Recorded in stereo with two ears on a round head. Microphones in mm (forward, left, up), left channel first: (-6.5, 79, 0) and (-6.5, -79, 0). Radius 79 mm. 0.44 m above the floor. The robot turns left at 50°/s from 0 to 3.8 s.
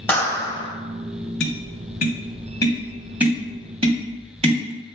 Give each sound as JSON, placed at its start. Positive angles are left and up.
{"t": 0.1, "sound": "a clap", "azimuth_deg": 165, "distance_m": 1.9}
{"t": 1.4, "sound": "tapping", "side_deg": 75, "distance_m": 1.5}